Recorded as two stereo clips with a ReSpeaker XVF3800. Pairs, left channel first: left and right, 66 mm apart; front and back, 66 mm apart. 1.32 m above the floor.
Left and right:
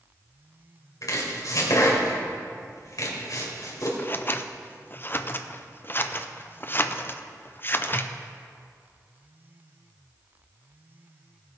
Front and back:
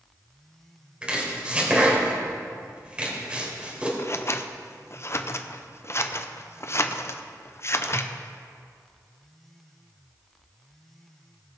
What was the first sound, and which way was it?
Chopping, 110° left.